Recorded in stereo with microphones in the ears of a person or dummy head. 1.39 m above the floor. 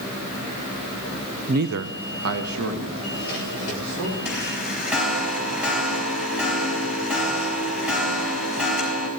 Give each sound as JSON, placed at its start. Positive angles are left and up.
{"t": 1.5, "sound": "a man speaking", "side_deg": -30, "distance_m": 0.6}
{"t": 4.2, "sound": "a chime", "side_deg": -5, "distance_m": 5.0}